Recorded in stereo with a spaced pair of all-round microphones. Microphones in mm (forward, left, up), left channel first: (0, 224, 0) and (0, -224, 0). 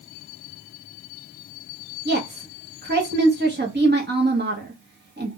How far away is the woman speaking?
About 0.6 m.